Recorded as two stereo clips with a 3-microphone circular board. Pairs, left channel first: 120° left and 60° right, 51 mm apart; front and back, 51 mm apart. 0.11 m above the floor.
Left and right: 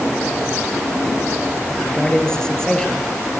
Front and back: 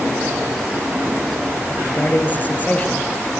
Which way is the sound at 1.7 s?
45° left.